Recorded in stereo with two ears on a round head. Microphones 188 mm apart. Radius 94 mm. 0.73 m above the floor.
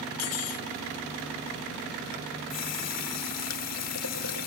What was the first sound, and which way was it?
Cutlery clinking, 75° left (ahead or behind).